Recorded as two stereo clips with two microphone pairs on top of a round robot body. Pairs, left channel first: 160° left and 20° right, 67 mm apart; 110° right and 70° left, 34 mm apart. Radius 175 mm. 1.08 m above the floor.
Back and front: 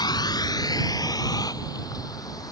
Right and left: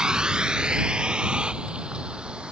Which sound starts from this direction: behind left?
A vehicle, at 0.0 s.